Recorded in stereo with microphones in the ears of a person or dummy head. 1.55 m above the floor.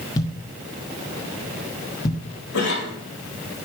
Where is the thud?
25° left (ahead or behind), 1.1 m.